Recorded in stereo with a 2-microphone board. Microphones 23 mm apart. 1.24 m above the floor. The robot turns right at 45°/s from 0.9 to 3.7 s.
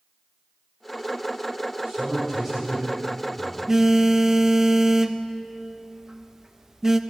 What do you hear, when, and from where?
1.9 s a man speaking: 40° right, 5 m; by 3.6 s 35° left, 5 m
3.7 s a phone buzzing: 20° right (ahead or behind), 0.5 m